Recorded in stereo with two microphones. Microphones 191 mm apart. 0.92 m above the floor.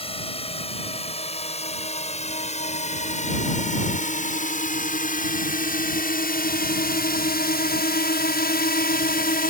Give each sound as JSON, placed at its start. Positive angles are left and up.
{"t": 0.0, "sound": "a drone", "side_deg": 35}